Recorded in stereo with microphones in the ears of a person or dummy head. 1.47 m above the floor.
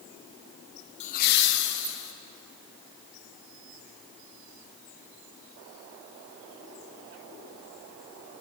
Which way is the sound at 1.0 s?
30° left (ahead or behind).